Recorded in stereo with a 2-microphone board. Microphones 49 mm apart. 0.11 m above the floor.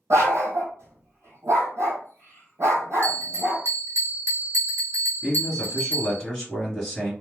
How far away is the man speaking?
About 1.5 m.